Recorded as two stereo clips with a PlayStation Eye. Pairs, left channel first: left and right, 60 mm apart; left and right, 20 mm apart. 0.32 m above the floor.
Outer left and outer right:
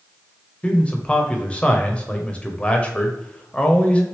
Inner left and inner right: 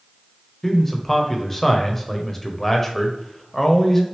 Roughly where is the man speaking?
Centre.